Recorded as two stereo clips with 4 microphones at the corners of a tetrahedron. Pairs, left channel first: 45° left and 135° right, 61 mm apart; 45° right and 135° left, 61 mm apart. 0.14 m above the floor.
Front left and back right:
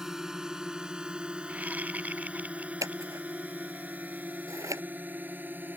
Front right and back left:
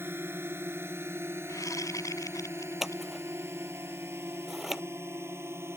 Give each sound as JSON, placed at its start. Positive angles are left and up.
{"t": 0.0, "sound": "a drone", "azimuth_deg": 145}
{"t": 1.5, "sound": "a whoosh", "azimuth_deg": -70}
{"t": 2.8, "sound": "scissors", "azimuth_deg": -140}